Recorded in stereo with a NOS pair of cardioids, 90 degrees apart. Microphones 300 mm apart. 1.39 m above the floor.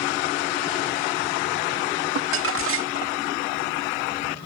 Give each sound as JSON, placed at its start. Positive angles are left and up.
{"t": 2.1, "sound": "crumpling", "azimuth_deg": -45}